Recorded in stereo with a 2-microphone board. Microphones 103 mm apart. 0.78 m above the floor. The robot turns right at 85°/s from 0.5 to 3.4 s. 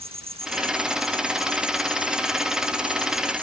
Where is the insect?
80° right; by 3.4 s 170° left.